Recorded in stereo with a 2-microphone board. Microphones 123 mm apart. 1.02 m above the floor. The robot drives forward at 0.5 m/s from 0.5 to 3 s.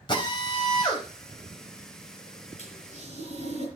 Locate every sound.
0.1 s a drill: 40° left (ahead or behind), 4 m; by 3.2 s 30° left (ahead or behind), 5 m
2.6 s a toilet flushing: 60° left (ahead or behind), 8.5 m